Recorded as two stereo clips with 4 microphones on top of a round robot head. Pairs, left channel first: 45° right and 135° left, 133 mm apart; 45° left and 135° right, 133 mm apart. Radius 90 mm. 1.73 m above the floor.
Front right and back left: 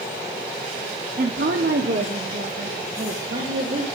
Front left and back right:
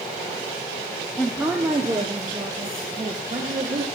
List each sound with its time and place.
1.2 s a woman speaking: 130° left, 0.5 m; by 3.9 s 165° left, 1.8 m